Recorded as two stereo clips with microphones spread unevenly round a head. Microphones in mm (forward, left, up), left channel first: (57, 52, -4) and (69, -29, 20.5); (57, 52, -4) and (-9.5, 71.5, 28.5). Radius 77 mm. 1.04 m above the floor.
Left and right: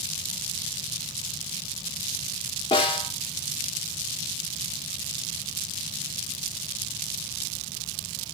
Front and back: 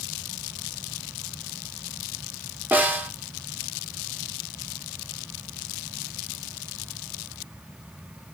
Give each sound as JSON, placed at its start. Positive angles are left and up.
{"t": 2.7, "sound": "a snare drum", "azimuth_deg": 100, "distance_m": 2.5}